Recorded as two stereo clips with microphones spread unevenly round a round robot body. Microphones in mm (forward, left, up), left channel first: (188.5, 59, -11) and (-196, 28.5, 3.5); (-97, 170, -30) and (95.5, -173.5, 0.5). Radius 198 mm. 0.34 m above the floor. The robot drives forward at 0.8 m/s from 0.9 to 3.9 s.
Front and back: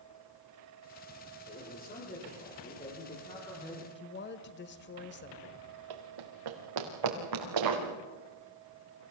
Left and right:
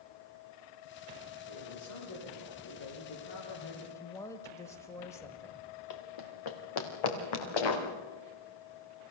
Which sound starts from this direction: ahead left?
A woman speaking, at 4.0 s.